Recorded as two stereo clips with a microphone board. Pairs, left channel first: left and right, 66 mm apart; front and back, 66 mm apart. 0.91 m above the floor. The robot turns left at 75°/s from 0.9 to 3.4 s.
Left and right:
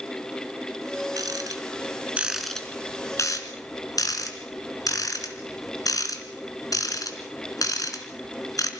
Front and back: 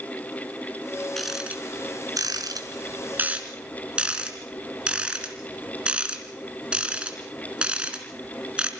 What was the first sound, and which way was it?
A rattle, 85° right.